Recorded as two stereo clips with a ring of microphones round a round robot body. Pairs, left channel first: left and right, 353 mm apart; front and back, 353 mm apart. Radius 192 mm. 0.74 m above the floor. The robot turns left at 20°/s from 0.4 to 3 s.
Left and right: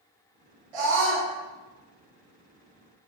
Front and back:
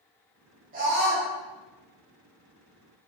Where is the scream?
110° right, 4.5 m; by 1.3 s 120° right, 4.5 m.